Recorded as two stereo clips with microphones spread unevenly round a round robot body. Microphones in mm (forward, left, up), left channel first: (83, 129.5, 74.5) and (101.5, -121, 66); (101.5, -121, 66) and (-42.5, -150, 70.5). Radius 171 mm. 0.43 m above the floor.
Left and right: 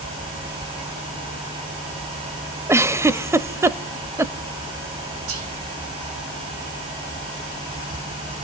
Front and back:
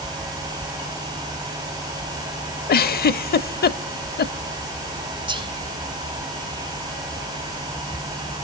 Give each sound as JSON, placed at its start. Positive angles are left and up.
{"t": 2.7, "sound": "a giggle", "azimuth_deg": -5, "distance_m": 0.7}
{"t": 5.3, "sound": "whispering", "azimuth_deg": -115, "distance_m": 3.5}